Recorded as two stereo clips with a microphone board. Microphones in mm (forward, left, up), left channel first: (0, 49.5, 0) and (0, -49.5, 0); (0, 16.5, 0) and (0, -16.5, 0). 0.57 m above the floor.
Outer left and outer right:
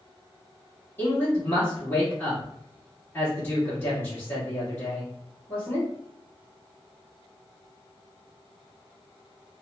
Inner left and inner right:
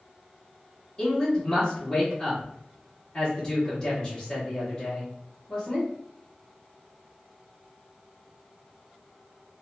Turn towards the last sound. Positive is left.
turn(degrees=25)  # may be behind; listen again after turning